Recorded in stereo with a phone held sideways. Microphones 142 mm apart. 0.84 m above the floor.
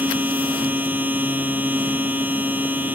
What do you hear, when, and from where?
0.0 s a machine running: 15° right (ahead or behind)